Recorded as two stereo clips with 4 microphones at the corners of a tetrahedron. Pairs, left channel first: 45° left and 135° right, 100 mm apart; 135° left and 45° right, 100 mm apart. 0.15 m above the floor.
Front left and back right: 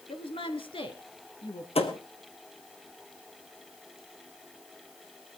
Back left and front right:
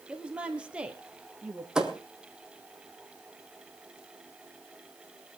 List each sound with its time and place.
0.1 s a woman speaking: 35° left, 2.5 m
1.8 s a thud: 40° left, 1.9 m